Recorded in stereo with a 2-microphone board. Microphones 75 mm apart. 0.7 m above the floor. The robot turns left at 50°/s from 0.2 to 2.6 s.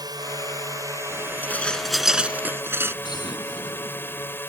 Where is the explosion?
80° left.